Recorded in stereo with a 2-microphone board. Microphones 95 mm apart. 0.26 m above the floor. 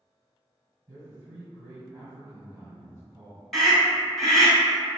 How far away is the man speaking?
About 1.9 m.